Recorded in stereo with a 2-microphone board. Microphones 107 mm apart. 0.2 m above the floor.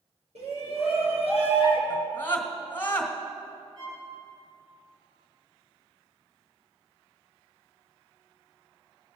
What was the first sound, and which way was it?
A shout, 70° right (ahead or behind).